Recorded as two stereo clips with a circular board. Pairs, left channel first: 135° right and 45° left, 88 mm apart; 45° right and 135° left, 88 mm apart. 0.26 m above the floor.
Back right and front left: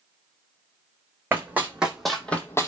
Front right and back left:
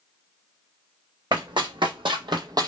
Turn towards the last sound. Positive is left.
turn(degrees=175)